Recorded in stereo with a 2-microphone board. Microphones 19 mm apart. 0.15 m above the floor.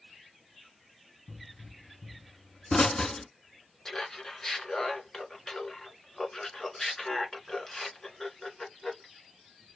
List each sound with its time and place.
1.3 s a pop: 40° left (ahead or behind), 0.6 m
3.9 s laughter: 30° left (ahead or behind), 1.5 m